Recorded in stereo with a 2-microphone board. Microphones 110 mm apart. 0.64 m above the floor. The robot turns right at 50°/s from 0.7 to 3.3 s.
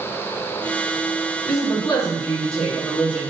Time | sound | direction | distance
1.4 | a woman speaking | 115° left | 2 m